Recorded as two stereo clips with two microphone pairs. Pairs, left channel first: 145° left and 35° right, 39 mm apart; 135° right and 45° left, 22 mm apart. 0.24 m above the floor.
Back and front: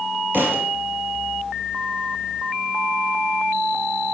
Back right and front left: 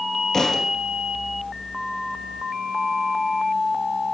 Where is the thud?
70° right, 3 m.